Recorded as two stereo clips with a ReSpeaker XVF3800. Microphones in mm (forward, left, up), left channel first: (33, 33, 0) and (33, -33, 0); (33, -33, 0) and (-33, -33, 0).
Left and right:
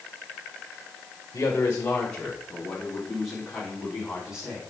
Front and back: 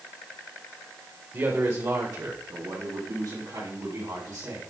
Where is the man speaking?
140° left, 1.3 m; by 4.6 s 165° right, 4.5 m.